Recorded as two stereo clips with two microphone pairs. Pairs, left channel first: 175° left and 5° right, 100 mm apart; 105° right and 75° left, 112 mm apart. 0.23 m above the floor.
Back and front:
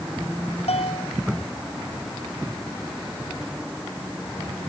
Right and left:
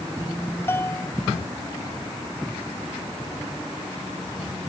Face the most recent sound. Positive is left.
turn(degrees=-175)